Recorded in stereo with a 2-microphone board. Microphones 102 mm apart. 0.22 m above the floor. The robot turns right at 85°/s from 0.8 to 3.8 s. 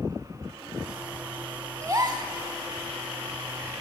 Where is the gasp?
135° right, 0.9 m; by 2.3 s 90° right, 0.9 m.